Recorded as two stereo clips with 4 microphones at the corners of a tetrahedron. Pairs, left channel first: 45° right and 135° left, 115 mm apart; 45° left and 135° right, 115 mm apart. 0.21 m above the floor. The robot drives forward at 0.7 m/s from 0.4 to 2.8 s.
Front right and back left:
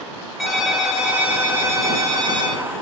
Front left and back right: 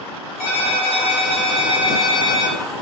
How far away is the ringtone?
About 2 m.